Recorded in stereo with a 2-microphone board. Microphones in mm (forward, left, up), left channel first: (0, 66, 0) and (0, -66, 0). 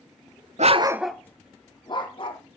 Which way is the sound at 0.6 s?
60° right (ahead or behind).